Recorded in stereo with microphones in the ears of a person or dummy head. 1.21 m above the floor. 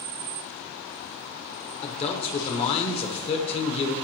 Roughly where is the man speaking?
Left.